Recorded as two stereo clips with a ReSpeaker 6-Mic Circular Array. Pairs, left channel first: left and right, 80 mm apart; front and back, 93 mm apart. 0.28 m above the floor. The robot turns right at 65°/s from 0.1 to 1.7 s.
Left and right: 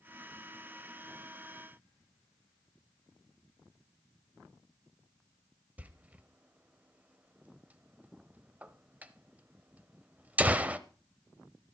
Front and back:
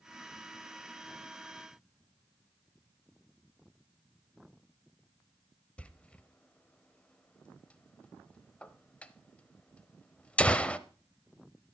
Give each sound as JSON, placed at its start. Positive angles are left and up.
{"t": 5.8, "sound": "a door slam", "azimuth_deg": -55, "distance_m": 0.6}